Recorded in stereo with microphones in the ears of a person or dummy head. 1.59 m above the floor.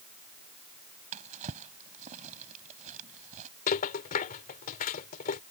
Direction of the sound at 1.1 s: 40° right (ahead or behind).